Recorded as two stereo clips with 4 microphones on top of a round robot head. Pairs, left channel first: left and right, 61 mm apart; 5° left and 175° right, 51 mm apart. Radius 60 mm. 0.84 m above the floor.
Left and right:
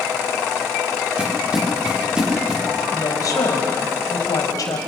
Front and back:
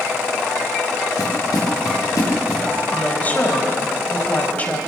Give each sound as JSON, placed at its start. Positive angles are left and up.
{"t": 1.2, "sound": "footsteps", "azimuth_deg": -15, "distance_m": 7.5}
{"t": 2.9, "sound": "a woman speaking", "azimuth_deg": 60, "distance_m": 4.5}